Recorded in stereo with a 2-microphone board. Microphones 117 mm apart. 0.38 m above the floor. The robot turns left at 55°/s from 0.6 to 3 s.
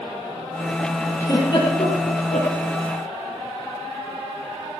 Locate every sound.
1.2 s a giggle: 25° left (ahead or behind), 7.5 m; by 2.5 s 80° left, 7.5 m